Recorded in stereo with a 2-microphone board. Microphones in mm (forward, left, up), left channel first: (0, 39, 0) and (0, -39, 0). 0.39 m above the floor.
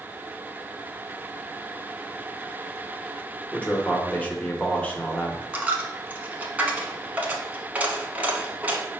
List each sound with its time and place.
3.5 s a man speaking: 20° left (ahead or behind), 0.8 m
5.5 s a dropped coin: 20° right (ahead or behind), 0.7 m